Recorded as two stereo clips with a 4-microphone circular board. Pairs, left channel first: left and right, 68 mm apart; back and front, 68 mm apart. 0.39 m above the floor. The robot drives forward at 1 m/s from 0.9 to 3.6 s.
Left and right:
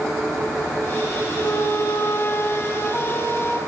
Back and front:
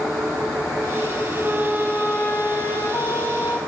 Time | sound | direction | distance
1.4 | a flute | 60° left | 0.9 m